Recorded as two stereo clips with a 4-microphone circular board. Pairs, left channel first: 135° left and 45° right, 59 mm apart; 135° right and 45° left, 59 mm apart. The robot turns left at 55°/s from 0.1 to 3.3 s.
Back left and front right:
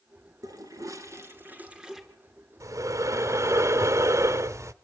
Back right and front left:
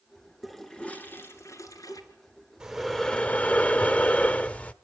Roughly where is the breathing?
Ahead right.